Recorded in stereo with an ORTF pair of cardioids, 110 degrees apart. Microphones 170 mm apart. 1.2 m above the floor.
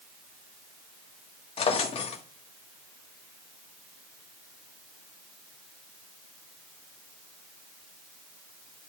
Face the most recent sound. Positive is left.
turn(degrees=35)